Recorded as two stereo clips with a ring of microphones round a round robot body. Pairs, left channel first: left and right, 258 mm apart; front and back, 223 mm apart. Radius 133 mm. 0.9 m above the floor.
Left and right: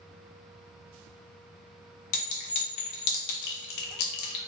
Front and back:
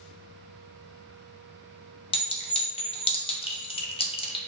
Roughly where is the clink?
Ahead left.